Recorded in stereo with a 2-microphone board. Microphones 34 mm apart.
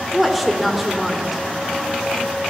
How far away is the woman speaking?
About 1.1 m.